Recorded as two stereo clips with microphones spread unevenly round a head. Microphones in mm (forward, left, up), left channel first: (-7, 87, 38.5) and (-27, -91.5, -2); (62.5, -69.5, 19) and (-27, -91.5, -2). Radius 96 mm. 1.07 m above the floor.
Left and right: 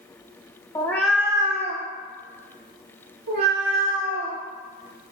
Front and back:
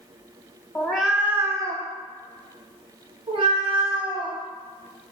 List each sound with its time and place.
0.8 s a cat meowing: 50° left, 0.6 m; by 4.4 s 135° right, 2 m